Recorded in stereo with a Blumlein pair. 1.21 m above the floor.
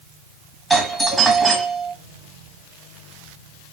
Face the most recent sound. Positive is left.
turn(degrees=-10)